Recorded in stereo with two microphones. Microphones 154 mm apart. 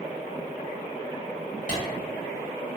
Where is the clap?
55° left (ahead or behind), 1.5 m.